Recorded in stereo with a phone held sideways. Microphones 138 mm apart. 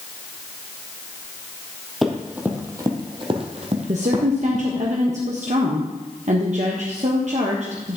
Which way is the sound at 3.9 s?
55° right (ahead or behind).